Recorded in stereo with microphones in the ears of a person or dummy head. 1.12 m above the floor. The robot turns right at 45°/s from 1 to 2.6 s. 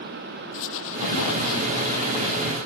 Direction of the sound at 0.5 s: 75° left.